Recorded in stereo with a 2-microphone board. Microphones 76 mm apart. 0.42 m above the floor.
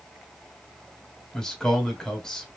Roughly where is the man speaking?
Centre.